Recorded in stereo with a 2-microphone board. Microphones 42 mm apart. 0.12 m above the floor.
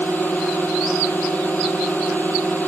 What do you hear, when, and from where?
0.0 s a drone: 50° left (ahead or behind)